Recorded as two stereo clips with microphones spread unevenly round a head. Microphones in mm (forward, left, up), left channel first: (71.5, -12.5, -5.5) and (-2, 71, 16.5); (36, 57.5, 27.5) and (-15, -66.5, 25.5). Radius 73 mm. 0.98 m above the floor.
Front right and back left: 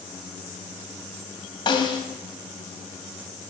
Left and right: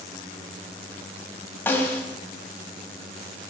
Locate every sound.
1.7 s a snare drum: 10° right, 1.8 m